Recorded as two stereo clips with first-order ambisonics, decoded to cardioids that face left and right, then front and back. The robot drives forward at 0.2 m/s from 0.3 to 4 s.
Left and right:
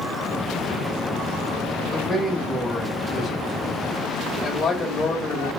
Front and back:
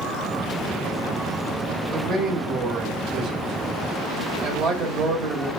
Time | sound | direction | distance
1.9 | a man speaking | 175° left | 0.8 m